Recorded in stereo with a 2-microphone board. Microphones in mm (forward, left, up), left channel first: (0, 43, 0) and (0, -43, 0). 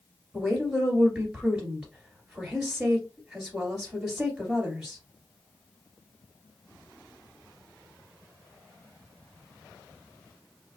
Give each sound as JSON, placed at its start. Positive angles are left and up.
{"t": 0.3, "sound": "a woman speaking", "side_deg": -5, "distance_m": 1.9}